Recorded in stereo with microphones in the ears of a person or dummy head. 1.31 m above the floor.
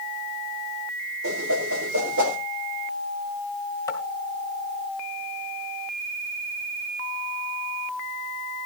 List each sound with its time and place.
1.2 s a whoosh: 80° right, 4 m
3.9 s tapping: 15° left (ahead or behind), 2.0 m